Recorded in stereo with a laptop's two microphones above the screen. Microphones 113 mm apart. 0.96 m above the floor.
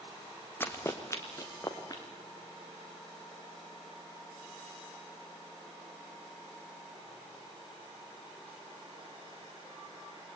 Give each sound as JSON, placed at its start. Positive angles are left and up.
{"t": 0.6, "sound": "running footsteps", "side_deg": 20, "distance_m": 2.5}